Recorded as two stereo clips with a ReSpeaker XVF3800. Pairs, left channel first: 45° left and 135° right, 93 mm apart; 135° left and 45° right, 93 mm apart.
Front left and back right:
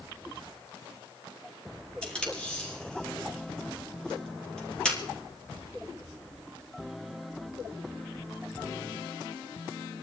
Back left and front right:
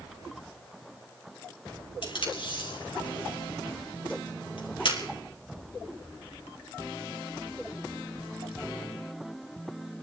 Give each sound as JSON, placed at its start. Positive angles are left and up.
{"t": 2.0, "sound": "tape being pulled", "azimuth_deg": 125, "distance_m": 3.5}